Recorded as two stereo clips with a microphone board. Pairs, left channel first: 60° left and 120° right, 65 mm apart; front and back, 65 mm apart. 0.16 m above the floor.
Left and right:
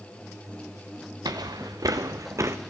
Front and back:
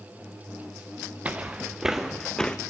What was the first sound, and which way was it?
Footsteps, 115° right.